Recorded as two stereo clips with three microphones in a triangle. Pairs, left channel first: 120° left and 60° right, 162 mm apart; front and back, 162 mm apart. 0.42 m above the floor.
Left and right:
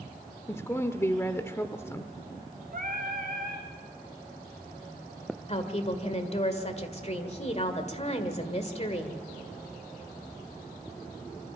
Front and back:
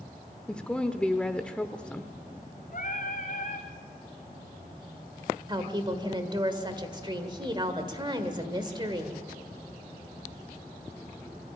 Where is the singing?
30° right, 3 m.